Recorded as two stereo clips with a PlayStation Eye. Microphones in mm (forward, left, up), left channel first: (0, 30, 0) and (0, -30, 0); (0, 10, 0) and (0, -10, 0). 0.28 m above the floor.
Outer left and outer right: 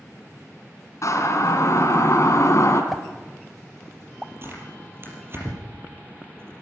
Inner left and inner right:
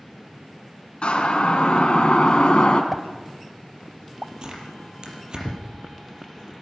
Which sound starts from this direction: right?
Tearing paper, at 4.4 s.